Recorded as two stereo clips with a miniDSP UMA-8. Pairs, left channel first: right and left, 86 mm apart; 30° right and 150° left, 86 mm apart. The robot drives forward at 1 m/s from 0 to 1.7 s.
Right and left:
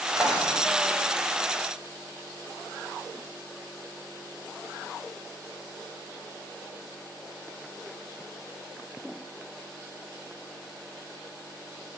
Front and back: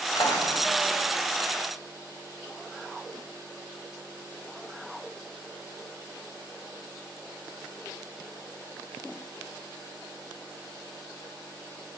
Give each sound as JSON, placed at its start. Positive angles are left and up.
{"t": 0.1, "sound": "a drawer", "azimuth_deg": 10, "distance_m": 6.0}